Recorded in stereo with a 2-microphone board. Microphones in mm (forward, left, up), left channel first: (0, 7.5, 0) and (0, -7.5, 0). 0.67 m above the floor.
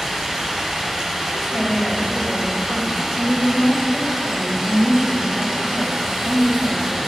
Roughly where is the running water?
Right.